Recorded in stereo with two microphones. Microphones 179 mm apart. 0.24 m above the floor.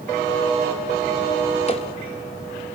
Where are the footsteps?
35° left (ahead or behind), 2.5 m.